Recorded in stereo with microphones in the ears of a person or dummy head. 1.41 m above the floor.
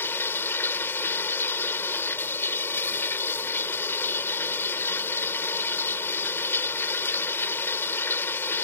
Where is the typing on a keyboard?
No typing on a keyboard in this recording.